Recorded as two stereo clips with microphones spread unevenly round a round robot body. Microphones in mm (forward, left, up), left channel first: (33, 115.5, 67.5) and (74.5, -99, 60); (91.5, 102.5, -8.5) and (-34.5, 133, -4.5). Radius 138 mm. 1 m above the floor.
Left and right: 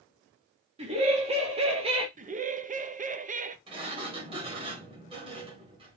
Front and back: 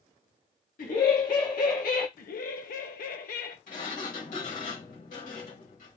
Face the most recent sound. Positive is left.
turn(degrees=-15)